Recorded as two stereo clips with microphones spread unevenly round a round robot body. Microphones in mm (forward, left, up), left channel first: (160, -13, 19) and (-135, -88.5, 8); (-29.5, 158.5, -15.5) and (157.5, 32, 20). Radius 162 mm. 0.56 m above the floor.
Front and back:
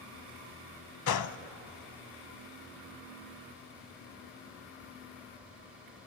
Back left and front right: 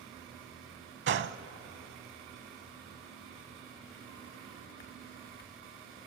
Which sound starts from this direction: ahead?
A gunshot, at 1.1 s.